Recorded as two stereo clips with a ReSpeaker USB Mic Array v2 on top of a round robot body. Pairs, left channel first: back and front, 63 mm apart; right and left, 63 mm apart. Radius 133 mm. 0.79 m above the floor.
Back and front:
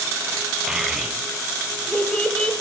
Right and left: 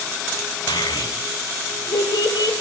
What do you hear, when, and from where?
0.7 s a child speaking: 85° right, 4 m; by 2.5 s 105° right, 4 m